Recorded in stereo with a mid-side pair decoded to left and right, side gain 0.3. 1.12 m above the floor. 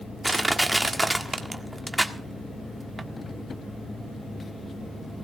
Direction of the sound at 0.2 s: 15° right.